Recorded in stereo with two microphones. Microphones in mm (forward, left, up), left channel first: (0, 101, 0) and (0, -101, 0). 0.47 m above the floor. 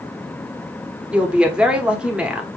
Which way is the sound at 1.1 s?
5° right (ahead or behind).